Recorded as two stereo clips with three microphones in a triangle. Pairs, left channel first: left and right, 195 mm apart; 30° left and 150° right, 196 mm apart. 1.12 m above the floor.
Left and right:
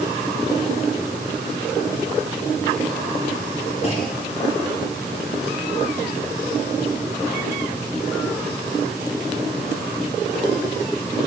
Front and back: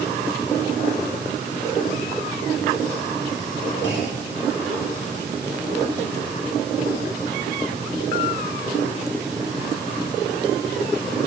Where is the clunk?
40° left, 5.5 m.